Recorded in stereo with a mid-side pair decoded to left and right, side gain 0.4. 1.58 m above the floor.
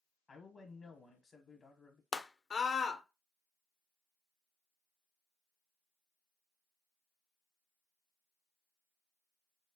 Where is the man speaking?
40° left, 1.2 m.